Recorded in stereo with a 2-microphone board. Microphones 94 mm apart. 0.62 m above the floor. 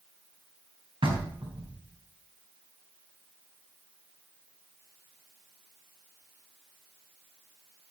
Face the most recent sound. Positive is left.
turn(degrees=-80)